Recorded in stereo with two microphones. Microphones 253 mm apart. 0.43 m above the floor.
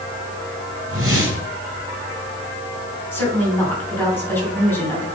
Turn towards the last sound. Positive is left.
turn(degrees=10)  # may be behind; listen again after turning